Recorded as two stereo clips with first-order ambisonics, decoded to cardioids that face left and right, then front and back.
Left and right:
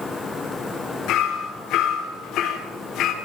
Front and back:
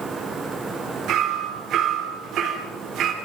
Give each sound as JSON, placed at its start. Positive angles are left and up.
{"t": 1.1, "sound": "hammering", "azimuth_deg": 135, "distance_m": 3.5}